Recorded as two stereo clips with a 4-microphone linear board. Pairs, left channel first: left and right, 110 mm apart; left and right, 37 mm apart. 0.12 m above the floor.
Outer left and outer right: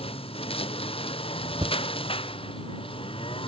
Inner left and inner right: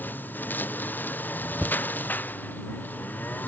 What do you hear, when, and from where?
0.0 s a lawn mower: 60° left (ahead or behind); by 3.5 s 55° left (ahead or behind)
1.6 s a thud: 45° right (ahead or behind)